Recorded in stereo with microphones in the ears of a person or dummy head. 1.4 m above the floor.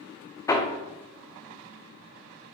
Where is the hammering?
15° left (ahead or behind), 0.5 m.